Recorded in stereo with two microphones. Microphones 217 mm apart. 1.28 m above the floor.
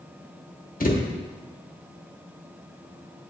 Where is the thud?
40° left (ahead or behind), 1.0 m.